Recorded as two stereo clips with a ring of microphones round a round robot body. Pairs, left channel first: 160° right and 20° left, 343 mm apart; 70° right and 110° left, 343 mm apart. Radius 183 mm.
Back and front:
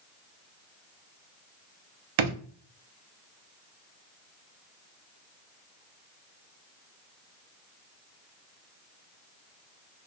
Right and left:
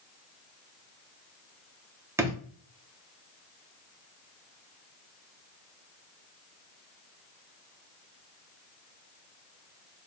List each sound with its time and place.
2.2 s a drawer: 30° left, 0.7 m